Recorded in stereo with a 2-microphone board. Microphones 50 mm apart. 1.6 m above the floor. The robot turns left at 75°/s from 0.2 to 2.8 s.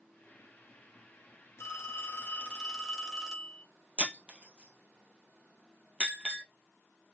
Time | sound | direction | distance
1.6 | a phone ringing | 90° left | 1.6 m
4.0 | breaking glass | 25° right (ahead or behind) | 1.9 m